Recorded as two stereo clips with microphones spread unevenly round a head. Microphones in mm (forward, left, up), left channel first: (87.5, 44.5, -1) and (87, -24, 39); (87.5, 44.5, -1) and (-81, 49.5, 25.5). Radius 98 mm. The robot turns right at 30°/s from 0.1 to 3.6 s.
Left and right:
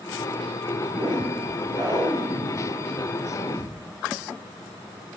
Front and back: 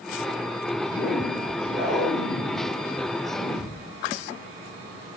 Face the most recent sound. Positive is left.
turn(degrees=5)